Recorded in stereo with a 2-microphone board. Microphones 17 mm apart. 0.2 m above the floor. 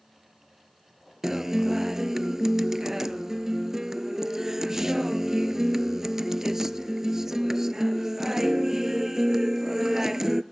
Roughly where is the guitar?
Right.